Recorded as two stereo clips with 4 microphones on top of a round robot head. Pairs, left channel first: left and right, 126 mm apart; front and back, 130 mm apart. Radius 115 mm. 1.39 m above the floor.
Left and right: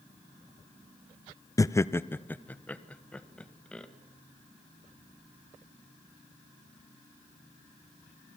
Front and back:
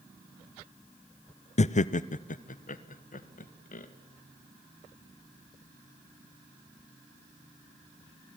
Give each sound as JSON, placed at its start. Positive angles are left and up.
{"t": 1.6, "sound": "laughter", "azimuth_deg": 25, "distance_m": 0.7}